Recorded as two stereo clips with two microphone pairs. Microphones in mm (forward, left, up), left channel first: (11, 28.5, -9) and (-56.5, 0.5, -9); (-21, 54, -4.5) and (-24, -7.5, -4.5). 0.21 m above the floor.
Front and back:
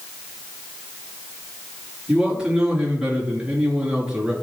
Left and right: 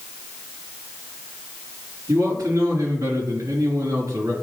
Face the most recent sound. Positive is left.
turn(degrees=-80)